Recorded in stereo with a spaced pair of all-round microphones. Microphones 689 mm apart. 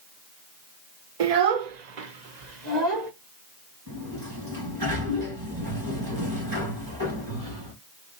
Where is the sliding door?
30° right (ahead or behind), 2 m.